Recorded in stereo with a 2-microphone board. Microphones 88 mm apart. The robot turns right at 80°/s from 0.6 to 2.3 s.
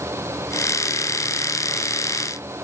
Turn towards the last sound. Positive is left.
No sound to turn to.